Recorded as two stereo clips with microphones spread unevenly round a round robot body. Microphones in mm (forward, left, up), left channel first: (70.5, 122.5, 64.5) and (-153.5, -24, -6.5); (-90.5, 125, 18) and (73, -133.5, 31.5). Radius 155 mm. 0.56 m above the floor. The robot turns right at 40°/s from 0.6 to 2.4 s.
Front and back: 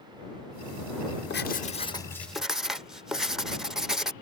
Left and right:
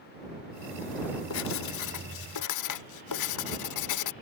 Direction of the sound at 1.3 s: 90° left.